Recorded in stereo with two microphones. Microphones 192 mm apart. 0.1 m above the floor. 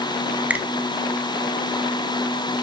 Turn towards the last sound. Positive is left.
turn(degrees=-10)  # may be behind; listen again after turning